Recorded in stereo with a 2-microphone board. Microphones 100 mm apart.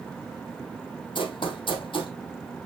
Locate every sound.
1.1 s running footsteps: 55° left (ahead or behind), 2.5 m